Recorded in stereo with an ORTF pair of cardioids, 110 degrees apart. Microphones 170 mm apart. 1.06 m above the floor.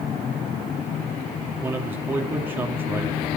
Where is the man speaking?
10° right, 2 m.